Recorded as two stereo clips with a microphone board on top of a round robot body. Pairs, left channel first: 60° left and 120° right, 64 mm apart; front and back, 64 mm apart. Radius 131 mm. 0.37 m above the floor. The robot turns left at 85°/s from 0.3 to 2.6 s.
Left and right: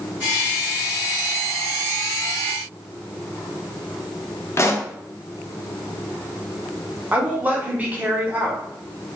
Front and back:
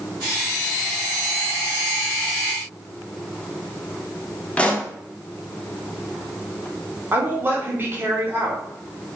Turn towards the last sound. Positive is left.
turn(degrees=-170)